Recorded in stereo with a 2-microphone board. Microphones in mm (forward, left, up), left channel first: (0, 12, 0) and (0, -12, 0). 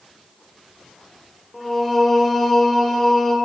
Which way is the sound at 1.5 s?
Centre (ahead or behind).